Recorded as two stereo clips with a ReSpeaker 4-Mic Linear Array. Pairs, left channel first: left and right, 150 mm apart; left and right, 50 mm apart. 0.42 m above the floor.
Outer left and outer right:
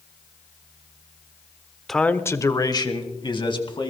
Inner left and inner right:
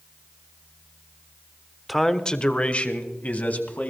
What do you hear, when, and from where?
1.9 s a man speaking: centre (ahead or behind), 0.8 m; by 3.9 s 35° left (ahead or behind), 3 m